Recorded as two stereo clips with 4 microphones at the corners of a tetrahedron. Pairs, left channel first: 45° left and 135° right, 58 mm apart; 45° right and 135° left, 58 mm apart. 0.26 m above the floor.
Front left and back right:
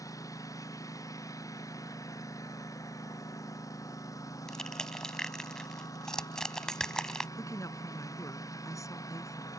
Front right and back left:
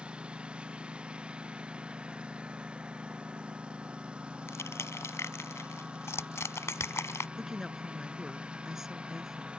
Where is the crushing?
30° right.